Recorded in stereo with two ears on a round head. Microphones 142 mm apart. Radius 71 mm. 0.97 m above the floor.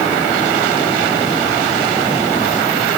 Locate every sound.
Only background noise.